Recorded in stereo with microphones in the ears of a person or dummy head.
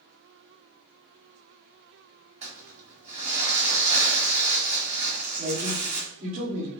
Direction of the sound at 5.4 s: 50° right (ahead or behind).